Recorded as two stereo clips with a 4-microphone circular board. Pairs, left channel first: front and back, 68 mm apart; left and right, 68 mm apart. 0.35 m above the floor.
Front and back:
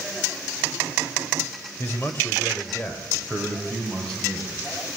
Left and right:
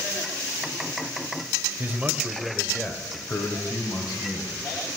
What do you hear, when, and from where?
1.8 s a man speaking: 40° right, 1.5 m; by 4.6 s 85° left, 2.5 m